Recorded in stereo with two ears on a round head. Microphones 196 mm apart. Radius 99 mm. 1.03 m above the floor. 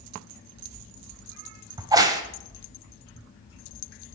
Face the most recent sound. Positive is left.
turn(degrees=-20)  # may be behind; listen again after turning